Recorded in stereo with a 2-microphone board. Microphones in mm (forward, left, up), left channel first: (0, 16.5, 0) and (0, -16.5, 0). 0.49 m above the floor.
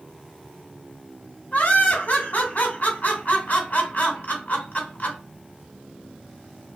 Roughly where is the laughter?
Left.